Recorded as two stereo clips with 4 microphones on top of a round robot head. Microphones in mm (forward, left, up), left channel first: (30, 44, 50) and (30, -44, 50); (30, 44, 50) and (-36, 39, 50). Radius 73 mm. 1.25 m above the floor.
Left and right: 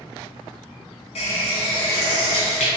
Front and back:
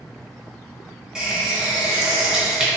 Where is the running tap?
105° left, 1.0 m.